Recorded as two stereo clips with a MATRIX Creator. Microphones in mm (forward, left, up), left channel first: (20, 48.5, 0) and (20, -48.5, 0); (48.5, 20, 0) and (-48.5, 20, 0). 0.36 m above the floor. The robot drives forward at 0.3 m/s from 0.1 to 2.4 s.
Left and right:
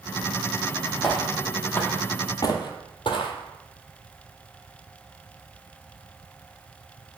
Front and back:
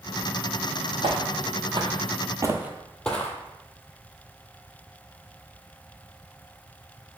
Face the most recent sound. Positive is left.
turn(degrees=65)